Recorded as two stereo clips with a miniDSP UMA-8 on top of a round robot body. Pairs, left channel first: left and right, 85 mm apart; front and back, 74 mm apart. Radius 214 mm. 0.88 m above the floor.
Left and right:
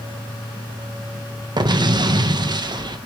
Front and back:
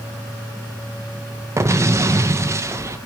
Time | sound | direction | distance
1.6 | an explosion | 125° right | 0.8 m